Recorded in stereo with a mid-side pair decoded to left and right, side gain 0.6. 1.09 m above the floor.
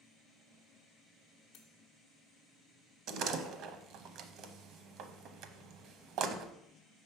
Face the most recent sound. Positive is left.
turn(degrees=-65)